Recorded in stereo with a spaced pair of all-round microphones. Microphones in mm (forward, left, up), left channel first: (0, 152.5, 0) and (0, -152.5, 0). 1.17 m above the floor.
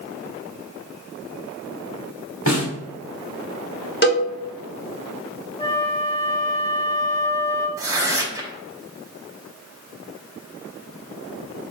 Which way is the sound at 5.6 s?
20° left (ahead or behind).